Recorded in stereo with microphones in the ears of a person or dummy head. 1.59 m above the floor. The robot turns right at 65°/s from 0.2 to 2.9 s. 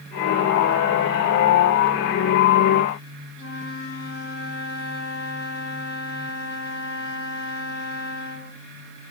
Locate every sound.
3.4 s a flute: 65° left (ahead or behind), 5 m